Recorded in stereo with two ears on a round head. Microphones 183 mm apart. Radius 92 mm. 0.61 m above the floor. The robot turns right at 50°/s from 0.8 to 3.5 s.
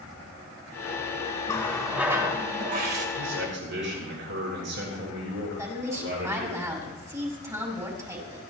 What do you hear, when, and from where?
1.5 s a running tap: 160° left, 1.9 m; by 3.1 s 120° right, 1.9 m
3.2 s a man speaking: 75° right (ahead or behind), 8.5 m; by 6.6 s 60° right (ahead or behind), 8.5 m
5.6 s a woman speaking: 15° right (ahead or behind), 5 m